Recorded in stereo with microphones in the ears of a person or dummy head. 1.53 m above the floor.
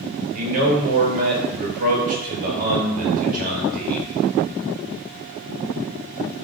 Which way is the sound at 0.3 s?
45° right (ahead or behind).